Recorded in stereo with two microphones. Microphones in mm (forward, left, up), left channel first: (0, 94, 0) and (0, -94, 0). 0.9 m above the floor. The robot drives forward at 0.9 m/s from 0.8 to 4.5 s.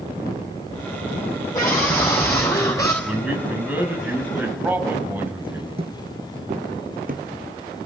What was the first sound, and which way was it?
A scream, 15° left (ahead or behind).